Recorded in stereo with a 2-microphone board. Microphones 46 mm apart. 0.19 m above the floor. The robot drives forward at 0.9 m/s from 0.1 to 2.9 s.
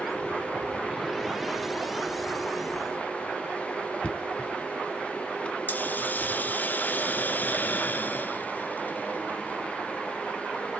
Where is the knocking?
30° left (ahead or behind), 1.8 m.